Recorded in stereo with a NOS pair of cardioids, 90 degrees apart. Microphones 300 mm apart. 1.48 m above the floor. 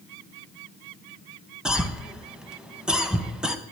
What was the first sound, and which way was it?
A cough, 5° right.